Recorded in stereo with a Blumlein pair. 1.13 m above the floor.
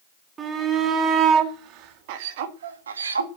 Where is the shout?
20° right, 3 m; by 3.3 s 80° right, 1.7 m.